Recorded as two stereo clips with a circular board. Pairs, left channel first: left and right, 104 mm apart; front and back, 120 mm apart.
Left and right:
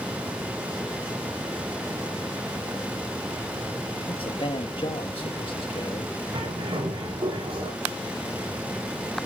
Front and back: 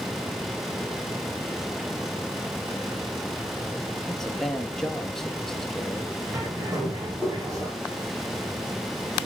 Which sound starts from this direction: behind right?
A bird, at 6.3 s.